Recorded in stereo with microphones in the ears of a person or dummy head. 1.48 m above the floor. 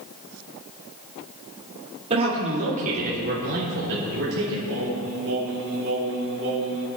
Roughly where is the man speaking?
Right.